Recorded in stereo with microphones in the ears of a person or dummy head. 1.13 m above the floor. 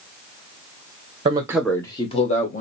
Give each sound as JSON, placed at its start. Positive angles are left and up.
{"t": 1.2, "sound": "a man speaking", "side_deg": -25, "distance_m": 0.7}